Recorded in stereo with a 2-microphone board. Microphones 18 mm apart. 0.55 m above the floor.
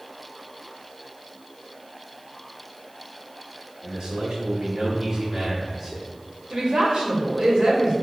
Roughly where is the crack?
No crack in this recording.